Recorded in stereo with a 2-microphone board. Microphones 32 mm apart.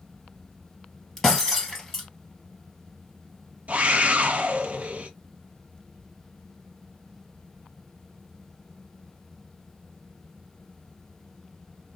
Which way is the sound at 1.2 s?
15° left (ahead or behind).